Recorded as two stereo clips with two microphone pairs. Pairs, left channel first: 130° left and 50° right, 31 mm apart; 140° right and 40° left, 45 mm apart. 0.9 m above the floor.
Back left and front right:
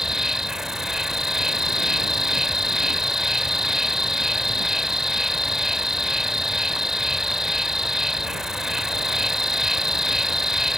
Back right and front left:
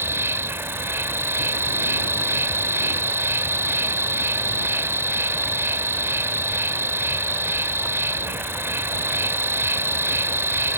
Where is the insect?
25° left.